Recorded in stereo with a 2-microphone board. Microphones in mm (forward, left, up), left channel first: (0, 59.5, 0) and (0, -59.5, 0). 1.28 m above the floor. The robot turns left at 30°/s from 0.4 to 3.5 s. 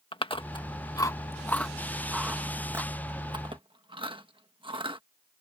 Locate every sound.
0.1 s chewing: 50° left (ahead or behind); by 5.0 s 45° right (ahead or behind)